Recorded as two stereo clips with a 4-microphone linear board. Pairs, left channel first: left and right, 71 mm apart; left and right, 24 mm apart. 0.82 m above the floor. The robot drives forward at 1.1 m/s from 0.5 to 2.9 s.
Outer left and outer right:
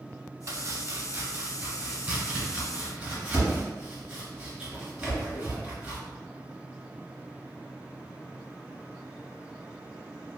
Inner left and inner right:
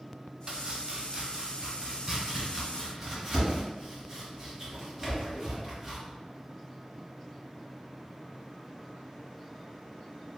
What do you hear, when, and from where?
0.5 s chopping: 40° right (ahead or behind), 0.7 m; by 6.0 s 10° right (ahead or behind), 2.5 m